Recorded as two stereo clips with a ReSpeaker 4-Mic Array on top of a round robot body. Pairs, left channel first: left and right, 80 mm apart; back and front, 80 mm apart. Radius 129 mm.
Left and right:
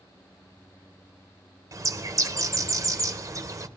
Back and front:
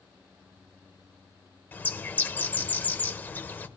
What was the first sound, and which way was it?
A bird, 120° right.